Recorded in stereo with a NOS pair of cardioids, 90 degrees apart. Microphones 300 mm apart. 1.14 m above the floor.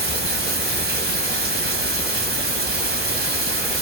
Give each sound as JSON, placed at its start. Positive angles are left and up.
{"t": 0.0, "sound": "running water", "azimuth_deg": -35, "distance_m": 1.3}